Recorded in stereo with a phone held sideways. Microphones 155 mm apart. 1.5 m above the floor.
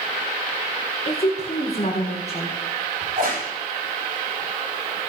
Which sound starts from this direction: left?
A woman speaking, at 1.1 s.